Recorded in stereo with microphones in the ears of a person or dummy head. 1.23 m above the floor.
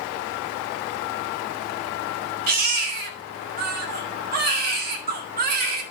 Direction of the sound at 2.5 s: 45° right (ahead or behind).